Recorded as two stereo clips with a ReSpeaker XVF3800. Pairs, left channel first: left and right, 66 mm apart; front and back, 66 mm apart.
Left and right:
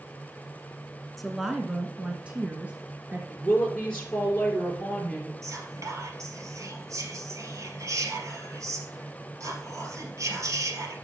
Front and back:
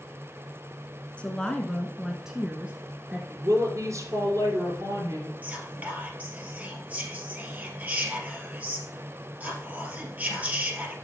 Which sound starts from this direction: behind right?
Whispering, at 5.4 s.